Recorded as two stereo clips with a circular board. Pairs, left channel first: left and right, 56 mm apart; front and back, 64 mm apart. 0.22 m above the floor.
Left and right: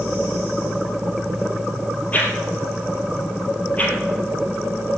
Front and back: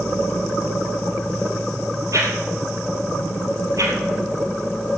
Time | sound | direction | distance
2.1 | a whoosh | 150° left | 3.5 m